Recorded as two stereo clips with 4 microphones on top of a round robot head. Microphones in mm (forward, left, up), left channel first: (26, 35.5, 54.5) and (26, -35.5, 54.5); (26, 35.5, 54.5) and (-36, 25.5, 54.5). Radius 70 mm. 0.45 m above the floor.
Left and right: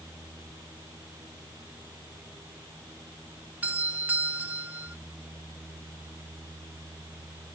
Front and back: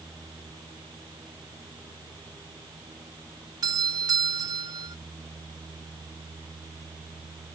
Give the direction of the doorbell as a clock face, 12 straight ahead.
5 o'clock.